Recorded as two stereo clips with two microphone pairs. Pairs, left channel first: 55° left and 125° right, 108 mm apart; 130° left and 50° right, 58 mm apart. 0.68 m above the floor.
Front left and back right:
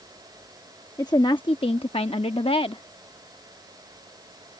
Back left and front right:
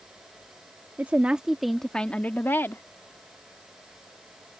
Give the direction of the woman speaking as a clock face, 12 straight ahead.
12 o'clock.